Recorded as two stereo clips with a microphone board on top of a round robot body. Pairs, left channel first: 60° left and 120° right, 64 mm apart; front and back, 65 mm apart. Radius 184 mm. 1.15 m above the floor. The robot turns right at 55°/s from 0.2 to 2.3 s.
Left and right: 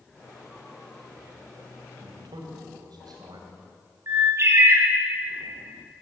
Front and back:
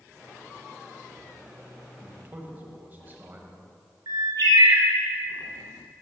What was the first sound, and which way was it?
A man speaking, 135° right.